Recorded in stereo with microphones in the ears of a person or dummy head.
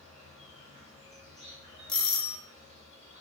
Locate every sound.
0.0 s an insect: 45° right (ahead or behind), 2.5 m
1.9 s a doorbell: 5° left (ahead or behind), 1.0 m